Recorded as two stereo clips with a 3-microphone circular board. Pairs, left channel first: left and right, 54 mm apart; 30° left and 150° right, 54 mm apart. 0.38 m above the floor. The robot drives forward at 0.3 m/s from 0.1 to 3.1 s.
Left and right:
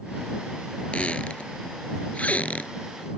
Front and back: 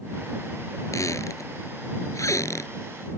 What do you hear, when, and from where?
0.9 s a squeak: 25° left